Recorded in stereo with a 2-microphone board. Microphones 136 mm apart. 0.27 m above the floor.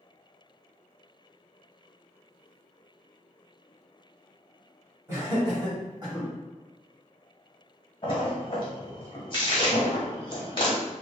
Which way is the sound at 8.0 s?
35° left (ahead or behind).